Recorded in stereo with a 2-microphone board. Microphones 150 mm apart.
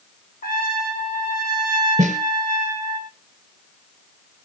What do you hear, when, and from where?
0.4 s a trumpet: 85° left, 4 m
2.0 s a snare drum: 50° right (ahead or behind), 2 m